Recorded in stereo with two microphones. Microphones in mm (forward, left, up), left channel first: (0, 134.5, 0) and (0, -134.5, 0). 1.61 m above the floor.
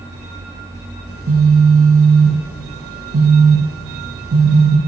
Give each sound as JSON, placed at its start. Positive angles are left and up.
{"t": 1.1, "sound": "a phone buzzing", "side_deg": -55, "distance_m": 0.6}